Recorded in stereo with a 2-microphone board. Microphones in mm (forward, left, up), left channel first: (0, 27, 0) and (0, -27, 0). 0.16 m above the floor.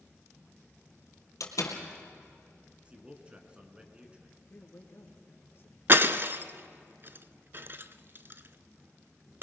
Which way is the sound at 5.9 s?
40° right (ahead or behind).